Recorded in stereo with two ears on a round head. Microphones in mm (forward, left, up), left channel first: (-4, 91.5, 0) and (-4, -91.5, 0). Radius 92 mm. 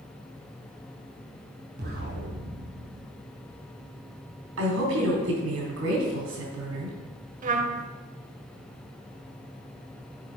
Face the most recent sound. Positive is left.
turn(degrees=-40)  # may be behind; listen again after turning